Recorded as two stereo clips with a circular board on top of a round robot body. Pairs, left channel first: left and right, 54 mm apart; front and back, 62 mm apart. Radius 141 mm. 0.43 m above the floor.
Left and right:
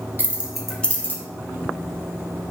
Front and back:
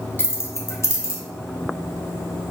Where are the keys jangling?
45° right, 0.8 m; by 1.2 s 40° left, 1.0 m.